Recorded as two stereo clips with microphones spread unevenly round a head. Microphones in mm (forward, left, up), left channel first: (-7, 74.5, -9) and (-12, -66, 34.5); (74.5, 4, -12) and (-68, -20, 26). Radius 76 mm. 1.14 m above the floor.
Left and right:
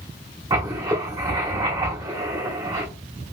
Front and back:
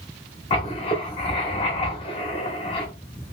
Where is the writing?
45° right, 0.9 m.